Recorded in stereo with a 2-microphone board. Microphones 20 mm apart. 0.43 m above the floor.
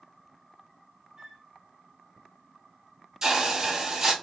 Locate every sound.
1.2 s a flute: 20° right (ahead or behind), 1.3 m
3.2 s a hiss: 20° right (ahead or behind), 0.6 m